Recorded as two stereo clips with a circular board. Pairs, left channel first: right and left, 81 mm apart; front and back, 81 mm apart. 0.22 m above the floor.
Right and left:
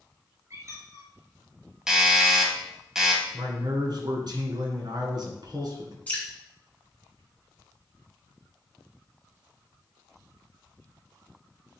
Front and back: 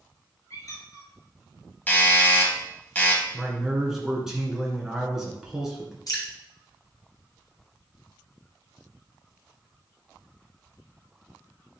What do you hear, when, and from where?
0.5 s a squeak: 40° left, 2 m
1.9 s a doorbell: 20° left, 1.4 m
3.3 s a man speaking: 95° left, 2 m
6.1 s dripping: 25° right, 2.0 m